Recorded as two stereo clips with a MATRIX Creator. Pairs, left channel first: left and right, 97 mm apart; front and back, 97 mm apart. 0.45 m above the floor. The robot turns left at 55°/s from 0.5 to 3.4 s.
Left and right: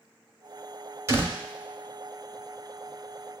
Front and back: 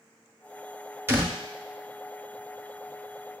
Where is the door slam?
130° right, 0.8 m; by 1.4 s 145° right, 0.8 m.